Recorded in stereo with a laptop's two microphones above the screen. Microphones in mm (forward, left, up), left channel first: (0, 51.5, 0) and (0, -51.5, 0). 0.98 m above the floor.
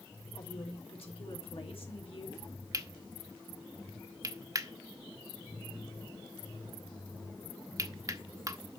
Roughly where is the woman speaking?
Left.